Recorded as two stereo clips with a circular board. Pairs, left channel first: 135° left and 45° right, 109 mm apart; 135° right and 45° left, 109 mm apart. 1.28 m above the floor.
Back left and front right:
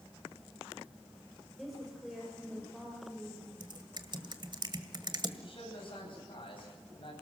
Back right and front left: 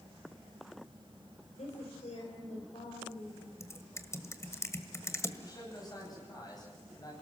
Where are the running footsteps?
No running footsteps in this recording.